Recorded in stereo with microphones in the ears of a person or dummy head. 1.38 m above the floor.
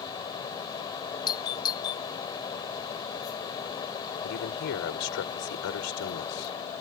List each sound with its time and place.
0.0 s a fan: 25° left (ahead or behind)
1.3 s a doorbell: 15° left (ahead or behind)
4.2 s a man speaking: 60° left (ahead or behind)